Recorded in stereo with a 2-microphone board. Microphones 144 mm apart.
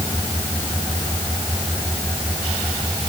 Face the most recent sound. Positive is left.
No sound to turn to.